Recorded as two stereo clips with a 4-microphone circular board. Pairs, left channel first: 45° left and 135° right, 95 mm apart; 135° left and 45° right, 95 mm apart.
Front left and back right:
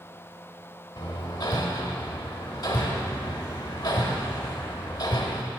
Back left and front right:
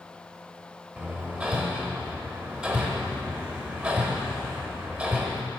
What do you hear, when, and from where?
1.0 s hammering: 25° left, 1.0 m